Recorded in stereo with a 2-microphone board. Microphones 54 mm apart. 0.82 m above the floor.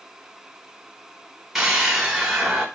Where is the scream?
5° right (ahead or behind), 1.1 m.